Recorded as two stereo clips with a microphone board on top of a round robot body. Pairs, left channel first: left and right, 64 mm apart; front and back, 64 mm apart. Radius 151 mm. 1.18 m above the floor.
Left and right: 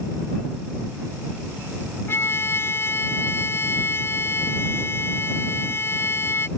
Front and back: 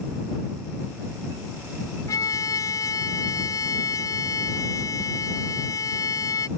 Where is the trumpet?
35° left.